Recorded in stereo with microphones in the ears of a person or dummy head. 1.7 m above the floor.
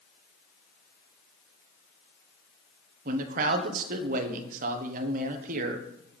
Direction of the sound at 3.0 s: 50° right (ahead or behind).